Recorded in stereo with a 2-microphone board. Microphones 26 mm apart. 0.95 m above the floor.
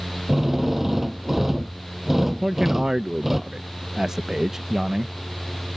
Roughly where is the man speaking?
Centre.